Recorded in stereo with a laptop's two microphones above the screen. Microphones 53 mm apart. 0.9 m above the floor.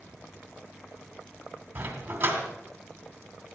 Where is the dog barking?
30° right (ahead or behind), 2.5 m.